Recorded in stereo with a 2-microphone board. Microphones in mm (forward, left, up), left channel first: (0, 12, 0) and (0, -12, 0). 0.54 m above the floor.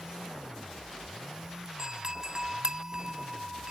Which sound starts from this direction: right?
A doorbell, at 1.8 s.